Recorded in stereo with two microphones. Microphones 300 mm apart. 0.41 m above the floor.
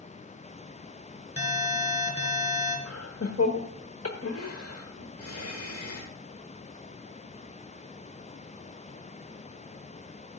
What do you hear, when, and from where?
1.4 s an alarm: 20° left (ahead or behind), 3.5 m
2.9 s laughter: 50° left (ahead or behind), 1.1 m